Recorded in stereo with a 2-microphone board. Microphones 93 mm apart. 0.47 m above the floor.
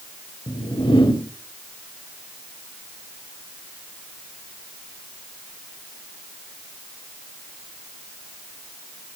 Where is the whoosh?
60° left (ahead or behind), 3 m.